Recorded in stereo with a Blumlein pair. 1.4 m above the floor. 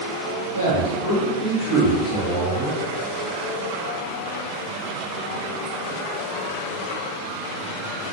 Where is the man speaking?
70° left, 2 m; by 2.8 s 5° left, 2.5 m.